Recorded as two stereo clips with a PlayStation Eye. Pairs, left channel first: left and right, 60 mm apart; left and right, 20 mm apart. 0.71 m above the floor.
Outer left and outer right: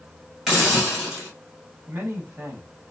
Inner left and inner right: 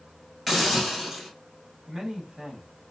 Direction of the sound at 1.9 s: 35° right (ahead or behind).